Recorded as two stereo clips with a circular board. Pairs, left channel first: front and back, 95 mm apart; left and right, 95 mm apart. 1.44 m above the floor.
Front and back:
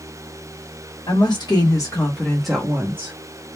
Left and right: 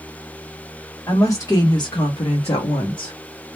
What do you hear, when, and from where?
1.1 s a woman speaking: 35° left, 1.2 m; by 3.1 s 130° left, 0.8 m